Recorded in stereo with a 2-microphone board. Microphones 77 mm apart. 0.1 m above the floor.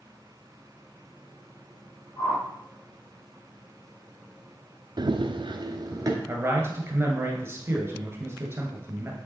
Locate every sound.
2.2 s a whoosh: 45° left (ahead or behind), 3.5 m
5.0 s running footsteps: 60° right (ahead or behind), 0.7 m; by 6.2 s 40° right (ahead or behind), 1.7 m
6.3 s a man speaking: 30° right (ahead or behind), 1.5 m